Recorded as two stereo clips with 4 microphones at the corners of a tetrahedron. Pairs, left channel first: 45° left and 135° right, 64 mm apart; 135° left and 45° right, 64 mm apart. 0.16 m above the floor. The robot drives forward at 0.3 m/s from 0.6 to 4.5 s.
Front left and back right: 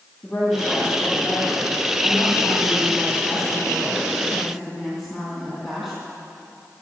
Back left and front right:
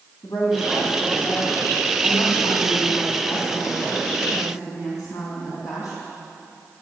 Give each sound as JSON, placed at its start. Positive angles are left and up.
{"t": 0.2, "sound": "a woman speaking", "azimuth_deg": 125, "distance_m": 4.0}